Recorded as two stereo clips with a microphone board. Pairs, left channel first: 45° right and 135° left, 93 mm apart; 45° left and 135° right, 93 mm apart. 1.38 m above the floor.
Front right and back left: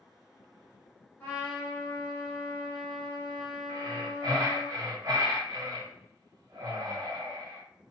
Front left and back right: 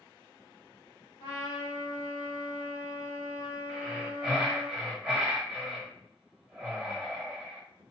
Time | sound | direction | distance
1.2 | a trumpet | 20° left | 1.9 m
3.7 | breathing | 150° left | 1.5 m